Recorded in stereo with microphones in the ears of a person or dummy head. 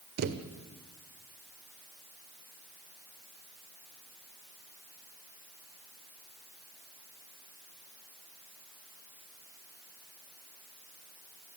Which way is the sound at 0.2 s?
55° right (ahead or behind).